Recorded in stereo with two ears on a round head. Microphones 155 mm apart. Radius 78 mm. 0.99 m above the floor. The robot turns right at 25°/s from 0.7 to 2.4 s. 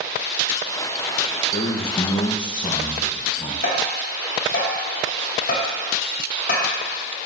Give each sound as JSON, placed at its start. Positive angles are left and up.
{"t": 1.5, "sound": "a man speaking", "side_deg": 40, "distance_m": 0.8}
{"t": 3.6, "sound": "tapping", "side_deg": 50, "distance_m": 2.5}